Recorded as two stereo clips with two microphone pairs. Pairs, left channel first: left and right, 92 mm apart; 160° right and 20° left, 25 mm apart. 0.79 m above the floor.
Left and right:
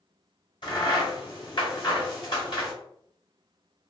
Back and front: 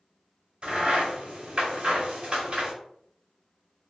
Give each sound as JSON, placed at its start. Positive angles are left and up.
{"t": 0.6, "sound": "a crack", "azimuth_deg": 60, "distance_m": 1.4}